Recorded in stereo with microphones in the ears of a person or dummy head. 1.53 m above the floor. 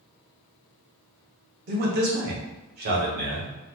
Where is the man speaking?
45° right (ahead or behind), 0.9 m.